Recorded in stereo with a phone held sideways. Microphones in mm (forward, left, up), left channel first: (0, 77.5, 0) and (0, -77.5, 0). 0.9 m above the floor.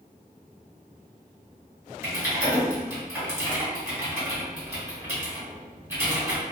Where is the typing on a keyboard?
15° right (ahead or behind), 1.8 m.